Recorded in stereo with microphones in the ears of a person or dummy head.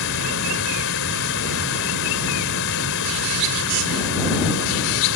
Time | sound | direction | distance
0.0 | running water | 80° left | ?